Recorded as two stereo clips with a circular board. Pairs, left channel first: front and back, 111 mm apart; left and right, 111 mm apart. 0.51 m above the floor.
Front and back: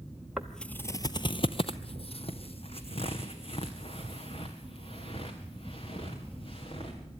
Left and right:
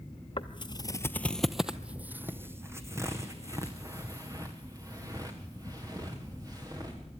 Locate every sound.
0.4 s footsteps: 95° left, 0.7 m; by 7.0 s 35° right, 5 m